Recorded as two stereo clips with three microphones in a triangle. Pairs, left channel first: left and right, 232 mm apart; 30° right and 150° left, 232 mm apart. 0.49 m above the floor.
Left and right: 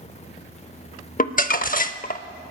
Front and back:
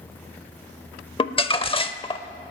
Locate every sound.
1.2 s crumpling: 35° left, 0.6 m